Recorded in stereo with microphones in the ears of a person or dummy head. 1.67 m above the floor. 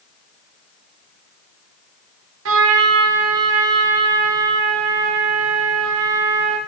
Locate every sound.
2.5 s a trumpet: 80° right, 0.7 m